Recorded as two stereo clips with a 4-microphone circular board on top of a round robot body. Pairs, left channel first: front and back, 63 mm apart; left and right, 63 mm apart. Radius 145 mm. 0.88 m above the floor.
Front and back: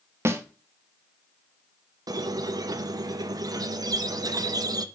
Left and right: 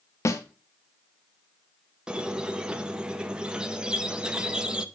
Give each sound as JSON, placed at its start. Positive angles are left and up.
{"t": 0.2, "sound": "a snare drum", "azimuth_deg": 130, "distance_m": 1.0}
{"t": 2.1, "sound": "a squeak", "azimuth_deg": -165, "distance_m": 0.6}